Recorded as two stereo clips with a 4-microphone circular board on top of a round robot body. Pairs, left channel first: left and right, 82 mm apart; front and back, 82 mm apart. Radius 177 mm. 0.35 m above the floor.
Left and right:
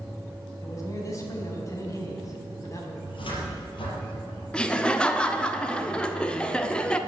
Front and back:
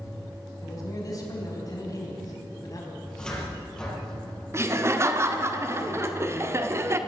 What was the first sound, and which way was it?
A man speaking, 45° left.